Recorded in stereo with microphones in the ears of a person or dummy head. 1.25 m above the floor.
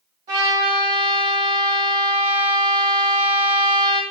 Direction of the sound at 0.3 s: 20° right (ahead or behind).